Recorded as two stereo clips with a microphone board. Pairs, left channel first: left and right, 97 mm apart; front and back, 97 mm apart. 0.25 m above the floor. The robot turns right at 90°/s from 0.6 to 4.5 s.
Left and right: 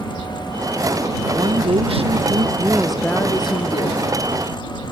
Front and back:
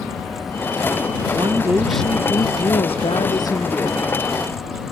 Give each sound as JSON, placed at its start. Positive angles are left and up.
{"t": 1.3, "sound": "a woman speaking", "azimuth_deg": -145}